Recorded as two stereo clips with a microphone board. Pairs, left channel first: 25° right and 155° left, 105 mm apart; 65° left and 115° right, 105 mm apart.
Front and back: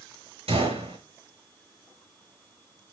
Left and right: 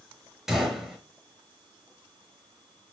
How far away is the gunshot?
About 5.5 m.